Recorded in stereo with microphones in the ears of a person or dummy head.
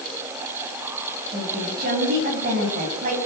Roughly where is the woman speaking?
Right.